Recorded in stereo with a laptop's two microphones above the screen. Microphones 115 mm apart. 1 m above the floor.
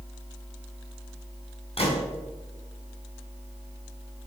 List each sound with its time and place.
1.8 s a gunshot: 60° left (ahead or behind), 2.5 m